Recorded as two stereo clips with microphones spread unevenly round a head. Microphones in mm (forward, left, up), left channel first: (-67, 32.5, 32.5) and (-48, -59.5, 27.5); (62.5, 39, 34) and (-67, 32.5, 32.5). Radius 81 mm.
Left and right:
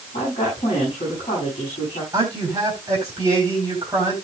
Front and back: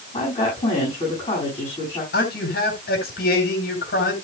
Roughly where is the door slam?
No door slam in this recording.